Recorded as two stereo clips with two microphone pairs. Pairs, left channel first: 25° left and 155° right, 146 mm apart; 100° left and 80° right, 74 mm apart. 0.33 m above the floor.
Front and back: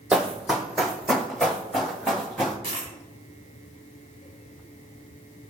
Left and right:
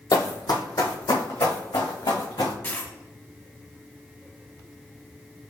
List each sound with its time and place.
0.1 s running footsteps: 120° left, 0.8 m; by 2.5 s 110° left, 2 m
2.6 s a dropped coin: 160° left, 1.2 m